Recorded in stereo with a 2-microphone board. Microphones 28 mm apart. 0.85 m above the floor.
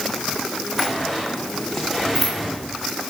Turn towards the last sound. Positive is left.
turn(degrees=0)  # may be behind; listen again after turning